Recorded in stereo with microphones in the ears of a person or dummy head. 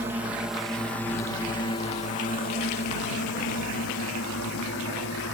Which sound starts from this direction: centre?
A drone, at 0.0 s.